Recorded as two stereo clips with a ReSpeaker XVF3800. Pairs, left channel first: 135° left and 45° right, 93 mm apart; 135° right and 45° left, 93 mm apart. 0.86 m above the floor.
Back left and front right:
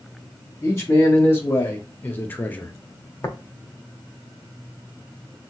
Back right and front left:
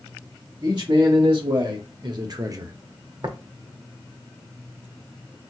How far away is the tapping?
About 0.6 m.